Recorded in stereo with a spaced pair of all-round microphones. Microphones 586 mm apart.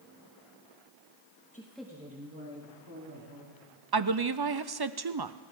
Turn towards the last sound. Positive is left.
turn(degrees=-40)  # may be behind; listen again after turning